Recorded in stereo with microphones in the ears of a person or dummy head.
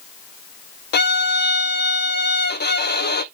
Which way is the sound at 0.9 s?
50° left (ahead or behind).